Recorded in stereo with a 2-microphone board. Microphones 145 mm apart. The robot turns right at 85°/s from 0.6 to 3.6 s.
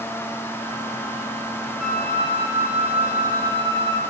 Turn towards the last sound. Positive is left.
turn(degrees=145)